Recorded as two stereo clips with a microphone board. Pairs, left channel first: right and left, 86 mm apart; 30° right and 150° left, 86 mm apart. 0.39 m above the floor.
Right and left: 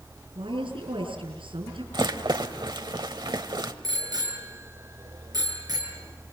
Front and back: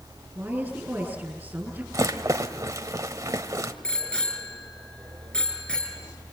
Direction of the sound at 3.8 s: 50° left.